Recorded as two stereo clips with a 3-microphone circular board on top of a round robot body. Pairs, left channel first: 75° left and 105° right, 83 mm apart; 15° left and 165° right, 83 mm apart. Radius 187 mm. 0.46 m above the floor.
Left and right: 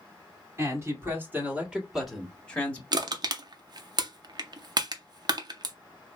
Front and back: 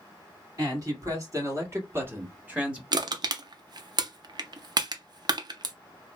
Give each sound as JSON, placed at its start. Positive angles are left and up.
{"t": 0.6, "sound": "a man speaking", "azimuth_deg": -145, "distance_m": 1.9}
{"t": 2.9, "sound": "crushing", "azimuth_deg": -135, "distance_m": 0.6}